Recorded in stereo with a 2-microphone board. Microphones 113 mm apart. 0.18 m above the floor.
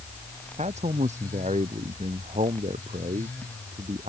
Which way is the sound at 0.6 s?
80° right.